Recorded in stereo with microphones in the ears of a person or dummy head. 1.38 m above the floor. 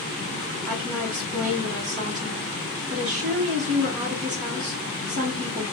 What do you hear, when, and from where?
0.7 s a woman speaking: 40° right (ahead or behind), 0.9 m